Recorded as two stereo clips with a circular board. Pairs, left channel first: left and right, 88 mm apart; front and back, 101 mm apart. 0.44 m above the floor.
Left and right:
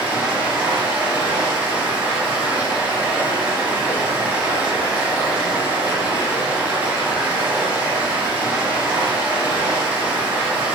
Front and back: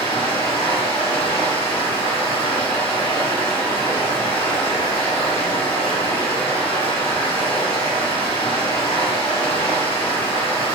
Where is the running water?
20° right, 1.2 m.